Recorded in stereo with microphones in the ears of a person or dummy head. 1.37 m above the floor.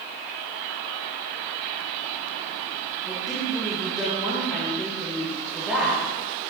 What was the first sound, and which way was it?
A woman speaking, centre (ahead or behind).